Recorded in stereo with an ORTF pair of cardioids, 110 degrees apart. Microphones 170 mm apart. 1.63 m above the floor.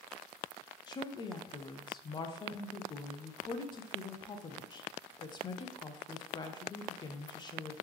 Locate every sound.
0.9 s a woman speaking: 30° left, 0.6 m